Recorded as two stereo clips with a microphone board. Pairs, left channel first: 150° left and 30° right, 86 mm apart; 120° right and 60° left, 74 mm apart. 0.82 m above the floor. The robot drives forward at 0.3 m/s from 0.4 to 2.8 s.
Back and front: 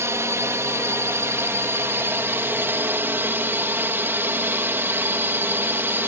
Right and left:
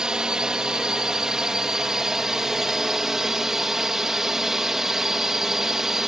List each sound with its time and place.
0.0 s a drone: 10° right; by 6.1 s 15° right